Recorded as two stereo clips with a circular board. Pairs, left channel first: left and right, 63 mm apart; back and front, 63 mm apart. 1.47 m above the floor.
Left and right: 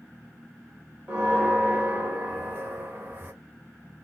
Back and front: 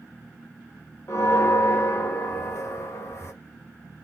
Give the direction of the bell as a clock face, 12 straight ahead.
5 o'clock.